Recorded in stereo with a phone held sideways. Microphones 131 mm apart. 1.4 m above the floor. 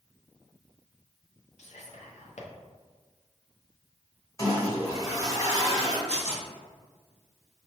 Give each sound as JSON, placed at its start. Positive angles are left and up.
{"t": 1.6, "sound": "whispering", "side_deg": 70, "distance_m": 0.7}
{"t": 4.4, "sound": "a toilet flushing", "side_deg": 30, "distance_m": 1.6}
{"t": 6.1, "sound": "tearing paper", "side_deg": 65, "distance_m": 1.4}